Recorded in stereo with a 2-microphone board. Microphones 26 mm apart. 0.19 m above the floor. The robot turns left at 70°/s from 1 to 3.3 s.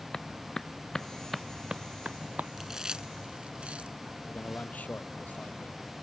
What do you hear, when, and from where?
0.1 s a clap: 20° left (ahead or behind); by 2.5 s 80° right
2.6 s chewing: 10° right (ahead or behind); by 4.0 s 45° right (ahead or behind)
4.3 s a man speaking: 75° left (ahead or behind)